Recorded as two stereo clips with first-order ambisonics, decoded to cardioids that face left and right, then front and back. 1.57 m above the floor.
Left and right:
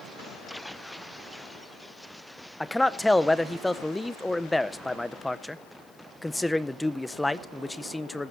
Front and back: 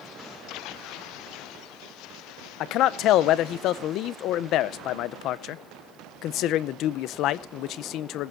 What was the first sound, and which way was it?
A man speaking, 5° left.